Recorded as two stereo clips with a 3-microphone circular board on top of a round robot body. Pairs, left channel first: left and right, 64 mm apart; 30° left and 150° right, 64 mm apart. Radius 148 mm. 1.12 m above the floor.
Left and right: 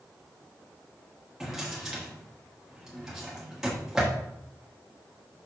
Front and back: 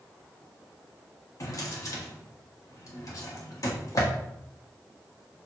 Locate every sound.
1.4 s a drawer: 5° right, 1.2 m